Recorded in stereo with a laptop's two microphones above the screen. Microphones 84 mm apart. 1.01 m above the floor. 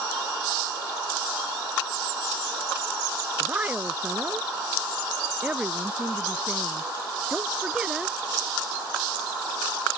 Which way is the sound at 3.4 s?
20° right (ahead or behind).